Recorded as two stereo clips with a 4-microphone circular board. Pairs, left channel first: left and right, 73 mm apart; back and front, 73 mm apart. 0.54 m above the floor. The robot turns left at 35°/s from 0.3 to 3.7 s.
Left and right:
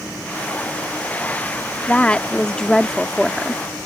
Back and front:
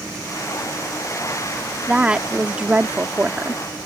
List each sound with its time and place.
1.9 s a woman speaking: 55° left; by 3.6 s 5° right